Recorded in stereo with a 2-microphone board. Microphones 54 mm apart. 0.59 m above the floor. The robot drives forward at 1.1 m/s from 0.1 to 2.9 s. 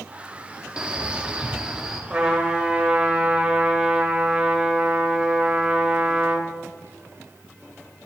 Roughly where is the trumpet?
Centre.